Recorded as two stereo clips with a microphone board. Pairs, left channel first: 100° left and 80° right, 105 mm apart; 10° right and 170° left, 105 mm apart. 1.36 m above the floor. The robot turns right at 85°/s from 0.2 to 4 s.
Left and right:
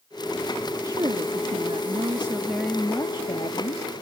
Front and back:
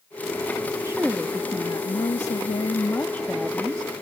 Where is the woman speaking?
135° right; by 4.0 s 135° left.